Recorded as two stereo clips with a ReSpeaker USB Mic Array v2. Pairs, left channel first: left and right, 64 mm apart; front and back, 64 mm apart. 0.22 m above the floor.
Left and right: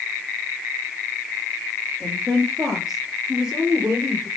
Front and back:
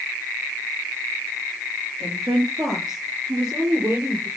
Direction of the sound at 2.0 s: 170° left.